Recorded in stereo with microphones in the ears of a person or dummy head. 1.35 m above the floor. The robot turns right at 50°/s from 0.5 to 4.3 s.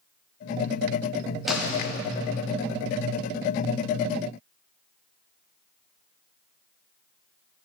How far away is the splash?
About 0.6 m.